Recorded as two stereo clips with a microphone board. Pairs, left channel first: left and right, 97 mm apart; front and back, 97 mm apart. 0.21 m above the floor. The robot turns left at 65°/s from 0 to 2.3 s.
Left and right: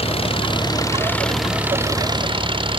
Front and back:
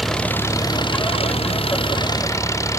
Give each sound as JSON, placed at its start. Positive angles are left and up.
{"t": 0.0, "sound": "an engine running", "azimuth_deg": 90}